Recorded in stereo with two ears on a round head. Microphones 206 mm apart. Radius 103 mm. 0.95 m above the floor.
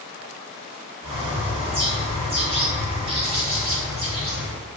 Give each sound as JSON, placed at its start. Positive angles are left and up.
{"t": 1.0, "sound": "a bird", "side_deg": -25, "distance_m": 1.2}